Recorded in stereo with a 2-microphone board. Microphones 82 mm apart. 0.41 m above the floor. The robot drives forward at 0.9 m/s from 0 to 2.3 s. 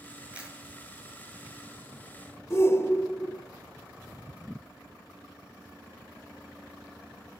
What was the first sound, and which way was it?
A camera shutter, 15° right (ahead or behind).